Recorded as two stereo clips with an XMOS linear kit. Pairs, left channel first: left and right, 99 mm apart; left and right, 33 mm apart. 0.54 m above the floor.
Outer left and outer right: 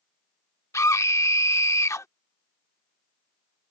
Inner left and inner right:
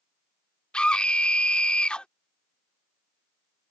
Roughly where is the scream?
Left.